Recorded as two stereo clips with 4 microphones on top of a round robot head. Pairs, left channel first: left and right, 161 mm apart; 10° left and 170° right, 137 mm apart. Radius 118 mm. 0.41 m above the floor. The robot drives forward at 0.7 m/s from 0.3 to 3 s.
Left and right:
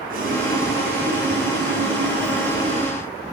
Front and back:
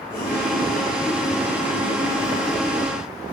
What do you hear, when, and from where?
0.1 s boiling: 60° right, 2.5 m; by 3.0 s 110° right, 2.5 m